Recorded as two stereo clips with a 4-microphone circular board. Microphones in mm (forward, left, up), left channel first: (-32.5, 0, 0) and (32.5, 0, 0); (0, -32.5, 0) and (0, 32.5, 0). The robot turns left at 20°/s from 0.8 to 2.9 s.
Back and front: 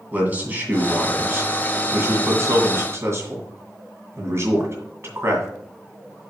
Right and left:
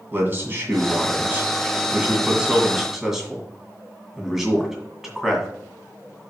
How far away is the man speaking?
About 2 m.